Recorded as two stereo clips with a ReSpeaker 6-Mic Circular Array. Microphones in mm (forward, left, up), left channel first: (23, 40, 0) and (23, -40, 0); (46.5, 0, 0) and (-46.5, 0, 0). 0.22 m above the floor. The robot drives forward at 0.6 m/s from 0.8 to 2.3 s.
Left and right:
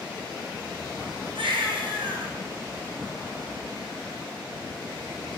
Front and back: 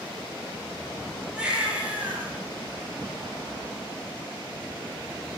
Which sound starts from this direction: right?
A baby crying, at 1.4 s.